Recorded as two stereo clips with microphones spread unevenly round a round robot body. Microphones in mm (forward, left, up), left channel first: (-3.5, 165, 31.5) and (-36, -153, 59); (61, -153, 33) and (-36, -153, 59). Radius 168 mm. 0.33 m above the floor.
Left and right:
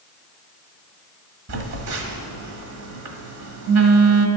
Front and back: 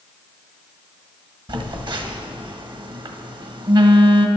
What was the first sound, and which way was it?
A phone buzzing, 130° right.